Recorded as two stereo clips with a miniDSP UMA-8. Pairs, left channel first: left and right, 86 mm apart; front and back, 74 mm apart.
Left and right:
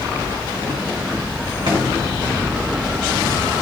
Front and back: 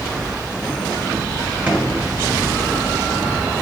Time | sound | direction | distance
1.7 | a drawer | 110° right | 2.5 m